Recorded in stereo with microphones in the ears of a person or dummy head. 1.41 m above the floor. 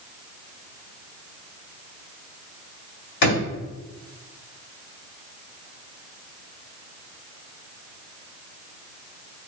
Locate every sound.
3.2 s a drawer: 60° left (ahead or behind), 1.9 m